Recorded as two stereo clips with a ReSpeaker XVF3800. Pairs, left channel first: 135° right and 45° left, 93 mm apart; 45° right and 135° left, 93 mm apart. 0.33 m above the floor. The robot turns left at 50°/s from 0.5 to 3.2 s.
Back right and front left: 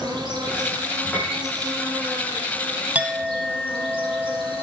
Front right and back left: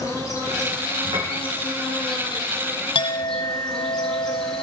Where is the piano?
155° left, 3.5 m; by 1.4 s 140° left, 3.5 m.